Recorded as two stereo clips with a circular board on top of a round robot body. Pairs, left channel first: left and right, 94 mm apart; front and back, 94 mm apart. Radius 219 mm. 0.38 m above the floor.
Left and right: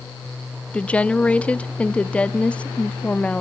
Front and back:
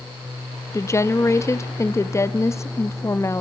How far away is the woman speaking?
About 1.3 m.